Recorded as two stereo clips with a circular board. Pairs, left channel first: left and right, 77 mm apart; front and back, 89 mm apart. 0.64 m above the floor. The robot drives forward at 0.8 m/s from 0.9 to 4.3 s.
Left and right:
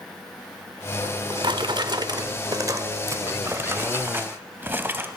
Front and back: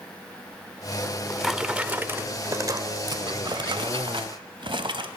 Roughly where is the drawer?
Right.